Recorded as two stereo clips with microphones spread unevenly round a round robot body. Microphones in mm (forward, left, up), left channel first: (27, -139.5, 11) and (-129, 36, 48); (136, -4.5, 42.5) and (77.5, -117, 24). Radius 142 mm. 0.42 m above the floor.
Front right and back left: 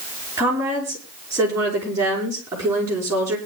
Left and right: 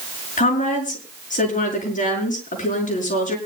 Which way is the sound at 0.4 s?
50° left.